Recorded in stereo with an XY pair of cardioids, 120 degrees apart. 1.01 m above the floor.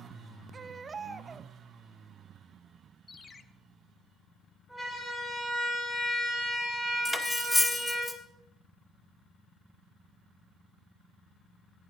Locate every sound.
0.5 s a baby crying: 30° right, 0.8 m
3.1 s a ringtone: 25° left, 0.9 m
4.7 s a siren: straight ahead, 8.5 m
7.0 s cutlery clinking: 10° left, 1.3 m